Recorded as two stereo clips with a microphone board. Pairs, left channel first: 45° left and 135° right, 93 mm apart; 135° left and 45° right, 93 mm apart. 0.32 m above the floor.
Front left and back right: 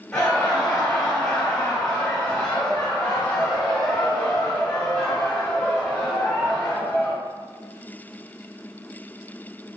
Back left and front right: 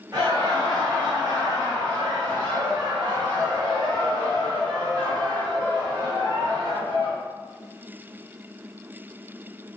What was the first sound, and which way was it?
Laughter, 15° right.